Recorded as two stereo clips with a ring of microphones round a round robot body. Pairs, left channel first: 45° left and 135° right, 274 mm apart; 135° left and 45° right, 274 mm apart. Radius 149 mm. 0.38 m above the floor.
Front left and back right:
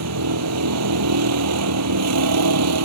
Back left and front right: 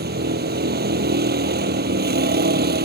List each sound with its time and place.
0.0 s a vehicle: 100° right